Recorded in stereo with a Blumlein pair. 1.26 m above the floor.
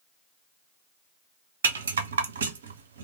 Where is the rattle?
65° right, 0.5 m.